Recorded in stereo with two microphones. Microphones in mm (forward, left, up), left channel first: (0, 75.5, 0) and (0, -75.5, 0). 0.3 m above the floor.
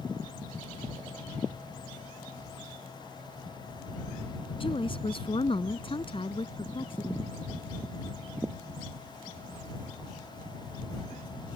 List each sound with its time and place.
4.6 s a woman speaking: 35° left (ahead or behind)